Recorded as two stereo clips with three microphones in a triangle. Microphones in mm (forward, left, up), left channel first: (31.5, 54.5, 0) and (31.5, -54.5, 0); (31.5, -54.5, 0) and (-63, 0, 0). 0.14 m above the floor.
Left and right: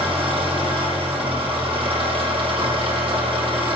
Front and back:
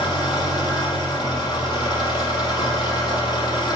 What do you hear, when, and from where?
0.0 s an engine running: 75° right, 2.5 m